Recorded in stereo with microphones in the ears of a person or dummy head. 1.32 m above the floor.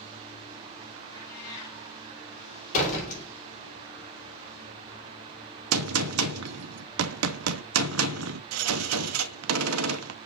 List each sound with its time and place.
1.1 s a cat meowing: 20° left (ahead or behind), 5 m
2.7 s a door slam: 40° left (ahead or behind), 3 m
5.7 s a gunshot: 80° right, 0.7 m